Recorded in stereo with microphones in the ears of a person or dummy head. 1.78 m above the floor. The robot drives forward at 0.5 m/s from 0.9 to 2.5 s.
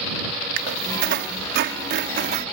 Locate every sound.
0.6 s a squeak: 60° right (ahead or behind); by 2.5 s 50° right (ahead or behind)